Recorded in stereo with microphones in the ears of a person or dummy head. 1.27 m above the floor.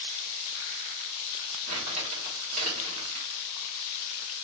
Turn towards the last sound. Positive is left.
turn(degrees=-45)  # may be behind; listen again after turning